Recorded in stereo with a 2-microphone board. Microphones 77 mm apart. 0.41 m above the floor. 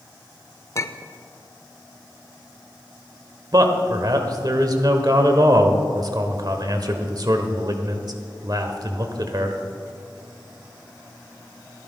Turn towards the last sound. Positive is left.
turn(degrees=-50)  # may be behind; listen again after turning